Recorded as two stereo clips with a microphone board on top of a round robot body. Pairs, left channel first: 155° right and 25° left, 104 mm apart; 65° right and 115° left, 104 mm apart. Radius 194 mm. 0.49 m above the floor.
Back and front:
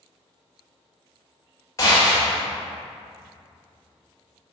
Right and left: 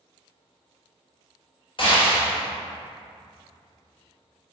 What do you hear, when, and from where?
1.8 s a gunshot: 100° right, 1.6 m